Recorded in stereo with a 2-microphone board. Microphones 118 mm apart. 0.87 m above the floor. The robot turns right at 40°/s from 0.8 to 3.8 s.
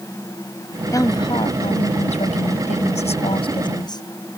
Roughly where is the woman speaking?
Ahead left.